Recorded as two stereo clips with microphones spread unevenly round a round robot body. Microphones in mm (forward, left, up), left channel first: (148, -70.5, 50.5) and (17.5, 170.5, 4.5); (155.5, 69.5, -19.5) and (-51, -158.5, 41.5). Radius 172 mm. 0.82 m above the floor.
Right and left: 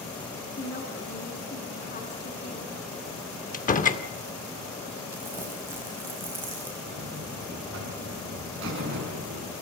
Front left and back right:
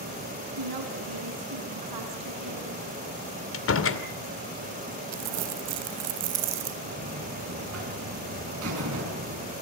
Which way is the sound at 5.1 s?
160° right.